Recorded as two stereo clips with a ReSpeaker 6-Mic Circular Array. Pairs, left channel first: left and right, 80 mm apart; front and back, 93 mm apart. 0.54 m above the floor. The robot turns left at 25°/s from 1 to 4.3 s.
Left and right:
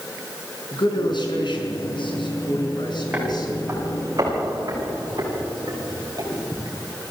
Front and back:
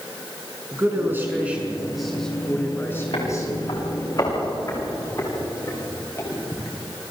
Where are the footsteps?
15° right, 9 m; by 6.8 s 55° right, 9.5 m.